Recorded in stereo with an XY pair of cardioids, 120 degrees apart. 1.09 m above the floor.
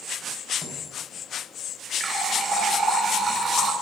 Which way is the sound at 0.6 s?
30° left.